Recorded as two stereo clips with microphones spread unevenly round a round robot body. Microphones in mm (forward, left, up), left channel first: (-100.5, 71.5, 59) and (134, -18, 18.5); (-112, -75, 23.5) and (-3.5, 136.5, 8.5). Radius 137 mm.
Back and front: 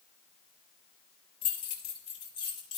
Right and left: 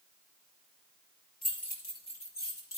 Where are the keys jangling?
170° right, 5 m; by 2.8 s 165° right, 6 m.